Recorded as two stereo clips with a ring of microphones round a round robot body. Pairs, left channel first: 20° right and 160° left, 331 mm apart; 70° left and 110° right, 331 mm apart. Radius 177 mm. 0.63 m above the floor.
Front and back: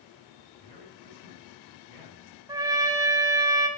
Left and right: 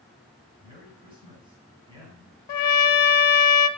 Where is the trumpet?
80° left, 0.6 m.